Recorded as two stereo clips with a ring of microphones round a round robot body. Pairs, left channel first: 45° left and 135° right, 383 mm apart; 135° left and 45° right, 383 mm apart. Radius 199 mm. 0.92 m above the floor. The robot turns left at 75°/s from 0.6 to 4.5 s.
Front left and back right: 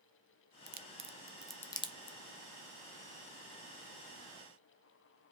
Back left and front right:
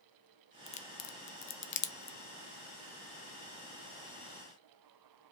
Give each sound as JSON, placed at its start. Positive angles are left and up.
{"t": 0.7, "sound": "a crack", "azimuth_deg": -165, "distance_m": 0.6}